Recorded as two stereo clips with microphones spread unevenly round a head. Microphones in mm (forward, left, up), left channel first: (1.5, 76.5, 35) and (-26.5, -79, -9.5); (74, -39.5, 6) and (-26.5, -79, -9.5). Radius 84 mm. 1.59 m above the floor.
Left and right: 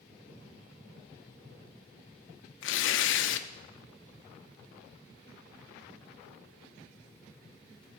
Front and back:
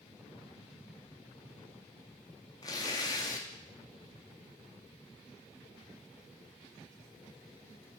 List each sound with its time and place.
2.6 s tearing paper: 95° left, 0.6 m